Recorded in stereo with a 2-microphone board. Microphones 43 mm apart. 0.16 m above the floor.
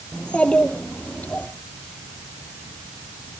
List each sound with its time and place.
0.1 s a child speaking: 25° left (ahead or behind), 3 m; by 1.5 s 45° left (ahead or behind), 3 m